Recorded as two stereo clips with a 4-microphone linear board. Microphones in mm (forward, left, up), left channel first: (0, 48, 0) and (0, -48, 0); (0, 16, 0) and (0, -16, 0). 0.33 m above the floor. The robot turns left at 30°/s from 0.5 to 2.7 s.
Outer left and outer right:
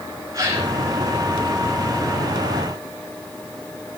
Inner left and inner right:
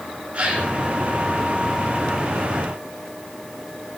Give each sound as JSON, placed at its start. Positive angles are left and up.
{"t": 0.3, "sound": "a gasp", "side_deg": -40, "distance_m": 3.5}